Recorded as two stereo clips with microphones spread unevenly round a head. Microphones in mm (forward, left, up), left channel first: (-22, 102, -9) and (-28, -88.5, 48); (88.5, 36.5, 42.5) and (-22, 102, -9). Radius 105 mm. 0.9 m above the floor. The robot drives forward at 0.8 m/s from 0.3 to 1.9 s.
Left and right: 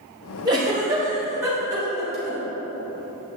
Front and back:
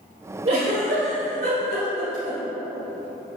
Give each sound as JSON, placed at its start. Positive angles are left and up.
{"t": 0.5, "sound": "a giggle", "azimuth_deg": -165, "distance_m": 2.5}